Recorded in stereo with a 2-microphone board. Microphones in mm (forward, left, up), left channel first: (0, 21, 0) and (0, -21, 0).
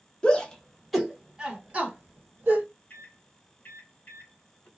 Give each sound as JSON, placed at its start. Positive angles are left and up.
{"t": 0.2, "sound": "a shout", "side_deg": 25, "distance_m": 0.9}
{"t": 2.9, "sound": "a microwave", "side_deg": 50, "distance_m": 0.9}